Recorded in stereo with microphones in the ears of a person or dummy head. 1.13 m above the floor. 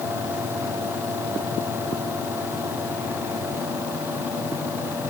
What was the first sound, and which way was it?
Only background noise.